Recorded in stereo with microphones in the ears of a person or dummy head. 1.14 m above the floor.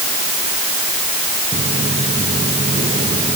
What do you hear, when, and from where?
1.5 s footsteps: 40° right (ahead or behind); by 3.4 s 35° right (ahead or behind)